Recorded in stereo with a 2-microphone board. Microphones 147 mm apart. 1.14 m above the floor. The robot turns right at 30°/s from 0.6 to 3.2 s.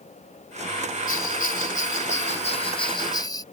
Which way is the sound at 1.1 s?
85° left.